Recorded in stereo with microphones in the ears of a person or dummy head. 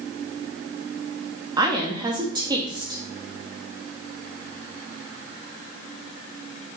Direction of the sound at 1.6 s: 20° right (ahead or behind).